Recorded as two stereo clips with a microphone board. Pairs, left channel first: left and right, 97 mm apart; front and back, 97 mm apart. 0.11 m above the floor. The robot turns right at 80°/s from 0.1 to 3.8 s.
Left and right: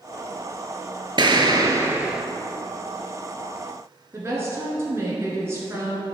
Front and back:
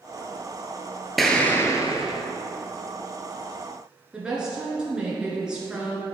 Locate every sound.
1.2 s an explosion: 90° right, 0.8 m; by 2.2 s 5° right, 0.8 m
4.1 s a woman speaking: 110° right, 1.7 m